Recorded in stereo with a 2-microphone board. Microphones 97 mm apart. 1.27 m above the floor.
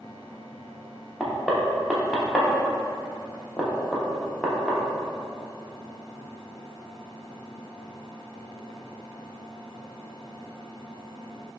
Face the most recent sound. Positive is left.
turn(degrees=0)  # may be behind; listen again after turning